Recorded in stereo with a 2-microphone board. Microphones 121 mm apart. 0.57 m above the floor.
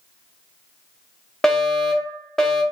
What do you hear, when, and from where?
1.4 s a fire alarm: 5° left (ahead or behind), 1.8 m